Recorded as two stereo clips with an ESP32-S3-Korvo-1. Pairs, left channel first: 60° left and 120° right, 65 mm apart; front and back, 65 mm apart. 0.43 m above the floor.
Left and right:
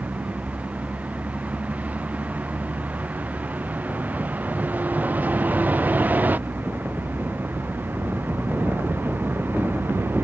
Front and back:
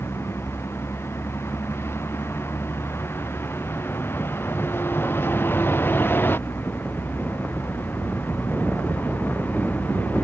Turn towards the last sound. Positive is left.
turn(degrees=-60)